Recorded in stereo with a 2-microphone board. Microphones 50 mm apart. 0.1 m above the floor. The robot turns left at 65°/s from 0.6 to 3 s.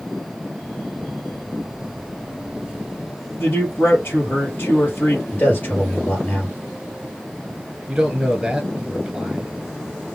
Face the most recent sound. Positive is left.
turn(degrees=-5)  # may be behind; listen again after turning